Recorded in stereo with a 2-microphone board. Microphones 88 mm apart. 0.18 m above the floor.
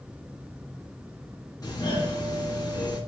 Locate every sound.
1.6 s a doorbell: 45° left (ahead or behind), 2.5 m